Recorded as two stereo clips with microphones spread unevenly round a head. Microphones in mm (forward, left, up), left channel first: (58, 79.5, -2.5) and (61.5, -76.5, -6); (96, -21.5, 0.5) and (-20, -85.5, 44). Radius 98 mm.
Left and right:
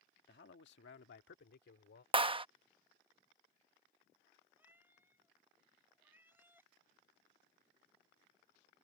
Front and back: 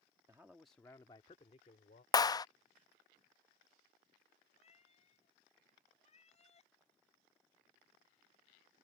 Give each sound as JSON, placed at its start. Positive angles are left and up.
{"t": 0.3, "sound": "a man speaking", "azimuth_deg": 130}
{"t": 2.1, "sound": "a clap", "azimuth_deg": -30}
{"t": 4.6, "sound": "a cat meowing", "azimuth_deg": -10}